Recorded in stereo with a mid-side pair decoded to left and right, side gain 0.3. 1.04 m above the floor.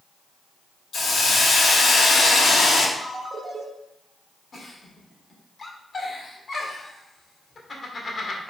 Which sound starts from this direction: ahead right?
A ringtone, at 3.0 s.